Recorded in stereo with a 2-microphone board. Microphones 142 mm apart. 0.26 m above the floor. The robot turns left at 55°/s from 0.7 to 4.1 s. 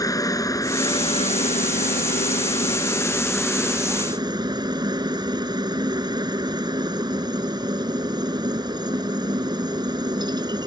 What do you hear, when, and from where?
0.0 s a helicopter: 150° left; by 10.7 s 35° right